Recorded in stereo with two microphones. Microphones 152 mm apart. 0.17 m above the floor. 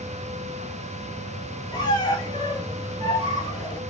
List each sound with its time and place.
1.7 s a squeak: 25° left (ahead or behind), 0.6 m